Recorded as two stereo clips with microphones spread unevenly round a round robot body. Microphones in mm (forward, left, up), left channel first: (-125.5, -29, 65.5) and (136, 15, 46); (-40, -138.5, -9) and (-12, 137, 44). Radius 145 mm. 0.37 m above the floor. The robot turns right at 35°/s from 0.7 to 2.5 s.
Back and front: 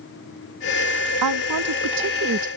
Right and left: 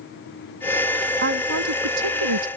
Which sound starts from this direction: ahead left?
A woman speaking, at 1.2 s.